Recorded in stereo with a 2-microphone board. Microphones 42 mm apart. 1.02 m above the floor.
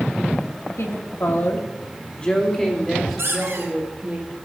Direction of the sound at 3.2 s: 90° right.